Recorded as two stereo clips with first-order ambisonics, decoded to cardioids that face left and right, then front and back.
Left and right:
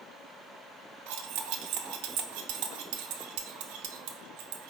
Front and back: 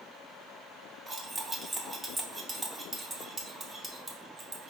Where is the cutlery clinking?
105° right, 0.6 m.